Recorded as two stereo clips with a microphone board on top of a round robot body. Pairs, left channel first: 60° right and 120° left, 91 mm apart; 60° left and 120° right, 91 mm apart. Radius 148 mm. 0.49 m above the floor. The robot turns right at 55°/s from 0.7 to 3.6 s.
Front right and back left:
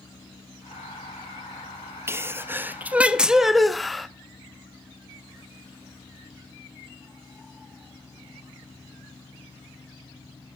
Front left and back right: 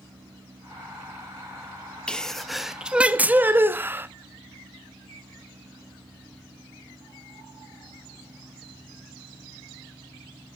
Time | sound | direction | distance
2.1 | a sneeze | 125° left | 0.8 m